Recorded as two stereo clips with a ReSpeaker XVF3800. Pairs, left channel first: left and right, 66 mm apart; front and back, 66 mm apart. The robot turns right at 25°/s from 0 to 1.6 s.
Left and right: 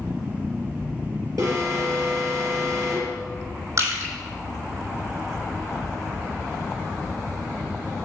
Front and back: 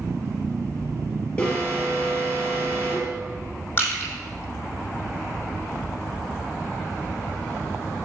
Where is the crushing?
55° right, 3.5 m.